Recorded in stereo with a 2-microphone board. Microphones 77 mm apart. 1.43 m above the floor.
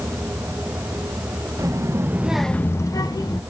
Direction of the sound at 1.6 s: 50° right (ahead or behind).